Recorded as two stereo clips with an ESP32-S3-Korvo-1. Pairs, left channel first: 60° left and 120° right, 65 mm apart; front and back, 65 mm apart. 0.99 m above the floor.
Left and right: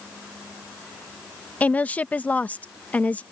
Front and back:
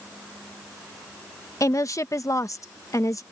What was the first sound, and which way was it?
A woman speaking, straight ahead.